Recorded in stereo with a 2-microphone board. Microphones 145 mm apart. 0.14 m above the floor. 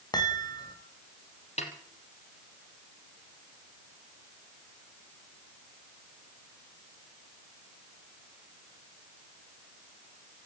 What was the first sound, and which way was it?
A chime, 30° left (ahead or behind).